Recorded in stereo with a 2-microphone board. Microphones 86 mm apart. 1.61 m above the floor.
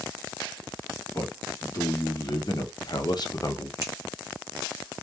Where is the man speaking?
40° left (ahead or behind), 1.2 m; by 3.7 s 35° left (ahead or behind), 0.6 m.